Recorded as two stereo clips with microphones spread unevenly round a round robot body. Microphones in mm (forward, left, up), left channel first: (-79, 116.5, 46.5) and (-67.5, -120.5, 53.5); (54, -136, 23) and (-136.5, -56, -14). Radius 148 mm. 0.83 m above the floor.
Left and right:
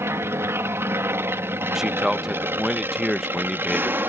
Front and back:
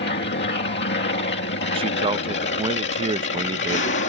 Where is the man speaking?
175° right.